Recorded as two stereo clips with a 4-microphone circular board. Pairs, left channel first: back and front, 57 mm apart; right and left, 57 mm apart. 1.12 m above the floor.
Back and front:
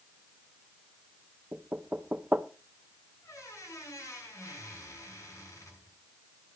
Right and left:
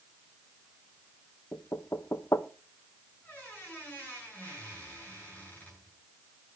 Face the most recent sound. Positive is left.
turn(degrees=-145)